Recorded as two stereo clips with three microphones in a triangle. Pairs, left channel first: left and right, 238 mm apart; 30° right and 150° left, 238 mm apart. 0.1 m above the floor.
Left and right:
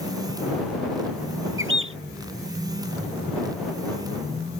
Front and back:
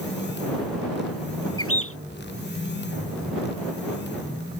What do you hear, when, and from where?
1.6 s a bird: 55° right